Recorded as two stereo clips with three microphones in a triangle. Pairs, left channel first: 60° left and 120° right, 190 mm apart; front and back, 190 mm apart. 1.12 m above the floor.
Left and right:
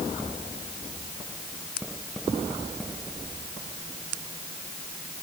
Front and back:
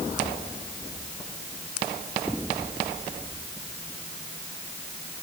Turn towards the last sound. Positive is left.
No sound to turn to.